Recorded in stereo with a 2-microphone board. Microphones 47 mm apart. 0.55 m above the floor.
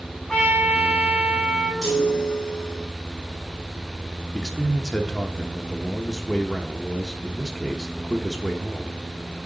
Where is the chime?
5° left (ahead or behind), 5 m.